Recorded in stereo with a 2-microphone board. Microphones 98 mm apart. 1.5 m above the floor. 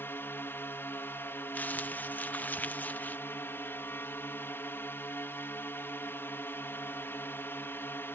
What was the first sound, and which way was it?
A drone, 20° left (ahead or behind).